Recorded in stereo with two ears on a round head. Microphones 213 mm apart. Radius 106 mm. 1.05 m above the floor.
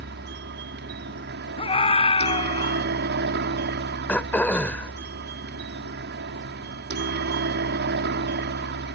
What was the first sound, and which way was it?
A helicopter, 45° right (ahead or behind).